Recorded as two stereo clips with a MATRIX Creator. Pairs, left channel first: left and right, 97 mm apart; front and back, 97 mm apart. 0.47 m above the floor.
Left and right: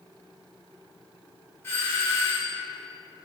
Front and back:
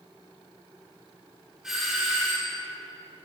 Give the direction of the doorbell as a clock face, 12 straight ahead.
9 o'clock.